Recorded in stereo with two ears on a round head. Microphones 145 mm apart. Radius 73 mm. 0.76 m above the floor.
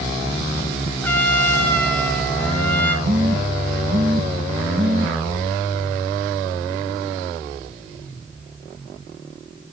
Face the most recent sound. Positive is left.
turn(degrees=-60)  # may be behind; listen again after turning